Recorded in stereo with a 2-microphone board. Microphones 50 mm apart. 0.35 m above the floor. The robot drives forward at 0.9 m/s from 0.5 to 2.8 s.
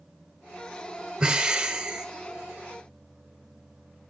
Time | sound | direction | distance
1.2 | breathing | 15° right (ahead or behind) | 1.1 m